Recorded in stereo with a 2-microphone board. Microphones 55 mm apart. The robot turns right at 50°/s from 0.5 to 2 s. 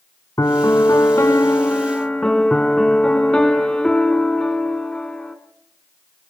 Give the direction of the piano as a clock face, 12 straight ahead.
9 o'clock.